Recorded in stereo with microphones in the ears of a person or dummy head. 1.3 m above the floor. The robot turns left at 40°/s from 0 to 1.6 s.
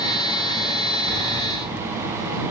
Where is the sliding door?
20° right (ahead or behind); by 2.5 s 40° right (ahead or behind).